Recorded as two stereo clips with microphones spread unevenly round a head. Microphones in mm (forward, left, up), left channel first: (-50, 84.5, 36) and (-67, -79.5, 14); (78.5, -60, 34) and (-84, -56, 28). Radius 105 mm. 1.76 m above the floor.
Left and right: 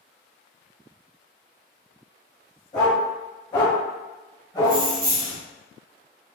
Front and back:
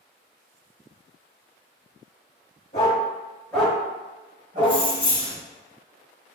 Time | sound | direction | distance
2.7 | a dog barking | 35° left | 1.9 m
4.6 | keys jangling | 50° right | 1.1 m